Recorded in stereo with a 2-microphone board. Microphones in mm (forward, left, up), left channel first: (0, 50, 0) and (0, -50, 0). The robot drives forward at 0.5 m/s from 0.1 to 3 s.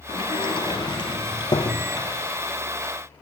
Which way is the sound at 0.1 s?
55° left (ahead or behind).